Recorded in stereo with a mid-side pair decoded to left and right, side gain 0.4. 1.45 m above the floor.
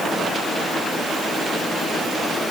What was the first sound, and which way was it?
Only background noise.